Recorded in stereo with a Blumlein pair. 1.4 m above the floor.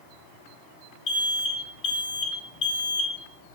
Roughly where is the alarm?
Ahead left.